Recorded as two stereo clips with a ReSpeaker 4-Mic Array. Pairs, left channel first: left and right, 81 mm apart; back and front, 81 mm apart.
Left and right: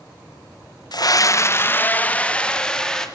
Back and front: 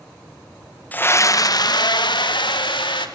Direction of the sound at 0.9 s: 110° left.